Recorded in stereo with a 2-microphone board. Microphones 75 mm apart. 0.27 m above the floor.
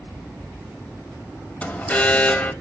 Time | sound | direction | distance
1.6 | an alarm | 20° left (ahead or behind) | 0.8 m